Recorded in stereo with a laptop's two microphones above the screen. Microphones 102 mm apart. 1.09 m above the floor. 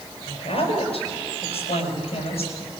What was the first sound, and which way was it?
A woman speaking, 75° left (ahead or behind).